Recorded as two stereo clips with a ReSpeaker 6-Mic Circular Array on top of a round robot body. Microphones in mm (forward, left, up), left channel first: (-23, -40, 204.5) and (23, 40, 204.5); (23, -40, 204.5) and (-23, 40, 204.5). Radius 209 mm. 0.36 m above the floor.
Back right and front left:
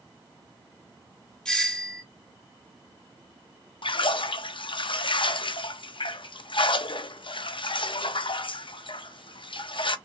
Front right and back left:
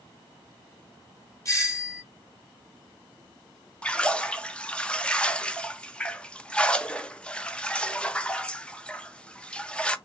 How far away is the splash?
About 0.6 m.